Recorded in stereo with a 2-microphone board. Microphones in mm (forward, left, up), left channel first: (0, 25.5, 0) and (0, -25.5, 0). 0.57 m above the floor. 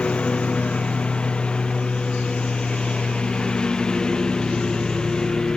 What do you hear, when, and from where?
0.0 s a lawn mower: 20° left (ahead or behind); by 5.6 s 15° left (ahead or behind)